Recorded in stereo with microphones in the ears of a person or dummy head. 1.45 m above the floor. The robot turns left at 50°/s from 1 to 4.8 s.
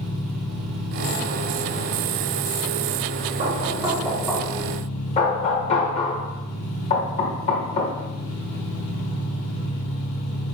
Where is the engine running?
85° right, 2.5 m; by 10.6 s 85° left, 2.5 m.